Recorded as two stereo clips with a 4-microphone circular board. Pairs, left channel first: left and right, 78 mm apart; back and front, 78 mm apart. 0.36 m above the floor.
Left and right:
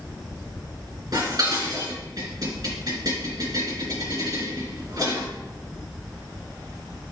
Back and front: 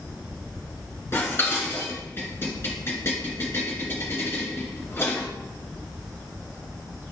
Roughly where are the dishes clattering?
Behind right.